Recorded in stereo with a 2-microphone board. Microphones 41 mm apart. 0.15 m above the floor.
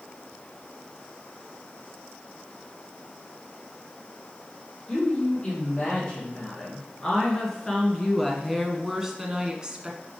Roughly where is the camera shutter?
No camera shutter in this recording.